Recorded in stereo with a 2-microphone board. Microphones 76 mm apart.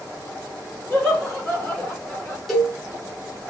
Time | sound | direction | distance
0.9 | laughter | 15° left (ahead or behind) | 1.7 m
2.5 | a cowbell | centre (ahead or behind) | 1.2 m